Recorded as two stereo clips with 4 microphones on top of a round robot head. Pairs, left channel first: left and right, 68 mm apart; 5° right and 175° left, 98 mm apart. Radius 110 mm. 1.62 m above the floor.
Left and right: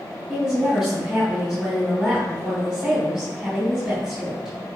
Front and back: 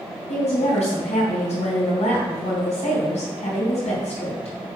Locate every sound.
0.3 s a woman speaking: 5° right, 3 m